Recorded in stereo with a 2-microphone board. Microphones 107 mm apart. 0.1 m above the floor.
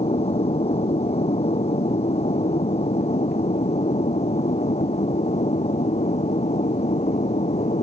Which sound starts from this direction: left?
An aircraft, at 0.0 s.